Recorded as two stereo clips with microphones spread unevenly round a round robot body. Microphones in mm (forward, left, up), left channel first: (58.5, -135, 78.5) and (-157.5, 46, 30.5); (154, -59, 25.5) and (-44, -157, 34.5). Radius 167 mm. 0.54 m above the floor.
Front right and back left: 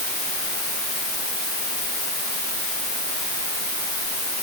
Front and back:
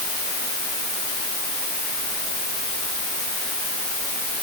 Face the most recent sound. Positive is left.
No sound to turn to.